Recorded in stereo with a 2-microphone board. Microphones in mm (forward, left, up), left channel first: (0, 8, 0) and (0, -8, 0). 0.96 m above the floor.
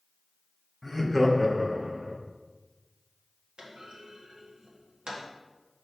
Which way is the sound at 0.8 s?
10° left (ahead or behind).